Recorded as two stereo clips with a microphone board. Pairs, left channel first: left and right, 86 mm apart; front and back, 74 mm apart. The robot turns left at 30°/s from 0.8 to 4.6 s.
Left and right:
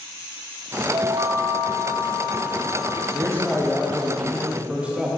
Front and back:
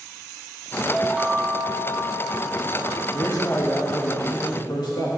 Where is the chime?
95° right, 0.9 m; by 3.0 s 160° right, 0.9 m.